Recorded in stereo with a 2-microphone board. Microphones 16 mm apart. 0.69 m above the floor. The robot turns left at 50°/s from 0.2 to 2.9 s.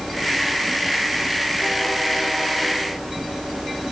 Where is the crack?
No crack in this recording.